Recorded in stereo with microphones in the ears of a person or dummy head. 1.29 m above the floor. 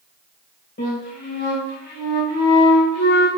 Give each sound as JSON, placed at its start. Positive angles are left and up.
{"t": 0.8, "sound": "a flute", "side_deg": 40, "distance_m": 1.5}